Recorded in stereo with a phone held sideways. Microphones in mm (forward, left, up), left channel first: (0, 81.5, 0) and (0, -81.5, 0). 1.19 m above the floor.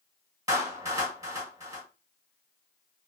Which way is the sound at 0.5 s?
20° right (ahead or behind).